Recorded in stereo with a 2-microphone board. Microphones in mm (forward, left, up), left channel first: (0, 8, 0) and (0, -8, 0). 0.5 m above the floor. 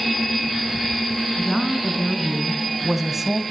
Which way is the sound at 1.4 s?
5° left (ahead or behind).